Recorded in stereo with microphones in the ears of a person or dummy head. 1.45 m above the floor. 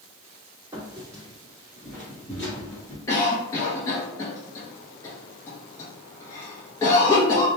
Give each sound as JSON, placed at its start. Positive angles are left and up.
{"t": 0.7, "sound": "footsteps", "side_deg": -25, "distance_m": 1.8}
{"t": 3.1, "sound": "a cough", "side_deg": 20, "distance_m": 0.7}